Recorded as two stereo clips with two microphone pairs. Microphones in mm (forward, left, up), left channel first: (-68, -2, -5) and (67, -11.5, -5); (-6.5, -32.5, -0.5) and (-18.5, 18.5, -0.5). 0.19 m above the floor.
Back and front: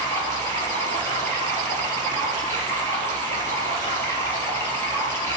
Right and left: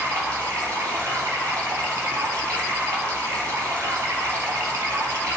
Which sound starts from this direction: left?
Running water, at 0.0 s.